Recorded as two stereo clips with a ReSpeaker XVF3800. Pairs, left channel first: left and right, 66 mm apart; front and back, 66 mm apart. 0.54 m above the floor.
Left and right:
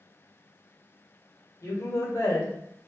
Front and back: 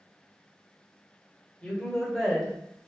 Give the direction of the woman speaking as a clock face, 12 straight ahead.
10 o'clock.